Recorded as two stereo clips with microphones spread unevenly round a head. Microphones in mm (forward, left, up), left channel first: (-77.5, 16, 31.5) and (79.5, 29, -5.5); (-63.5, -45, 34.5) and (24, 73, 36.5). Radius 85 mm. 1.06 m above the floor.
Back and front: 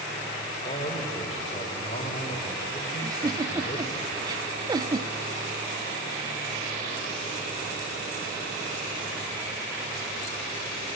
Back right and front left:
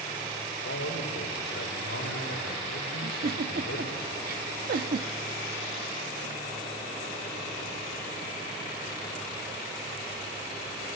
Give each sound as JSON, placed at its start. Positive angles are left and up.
{"t": 0.6, "sound": "a man speaking", "azimuth_deg": -120, "distance_m": 3.5}
{"t": 3.0, "sound": "a giggle", "azimuth_deg": 75, "distance_m": 0.9}